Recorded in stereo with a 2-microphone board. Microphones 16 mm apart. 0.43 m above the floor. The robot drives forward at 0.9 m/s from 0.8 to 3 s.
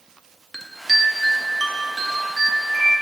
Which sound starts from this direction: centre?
A chime, at 0.5 s.